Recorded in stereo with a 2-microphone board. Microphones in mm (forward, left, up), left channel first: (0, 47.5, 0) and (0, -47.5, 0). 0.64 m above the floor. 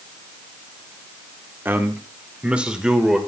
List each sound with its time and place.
1.6 s a man speaking: 20° right (ahead or behind), 1.5 m; by 3.2 s 5° right (ahead or behind), 2 m